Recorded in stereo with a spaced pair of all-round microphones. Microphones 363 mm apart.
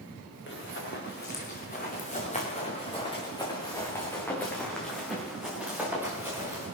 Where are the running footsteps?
35° left (ahead or behind), 4 m; by 6.7 s 10° right (ahead or behind), 5 m.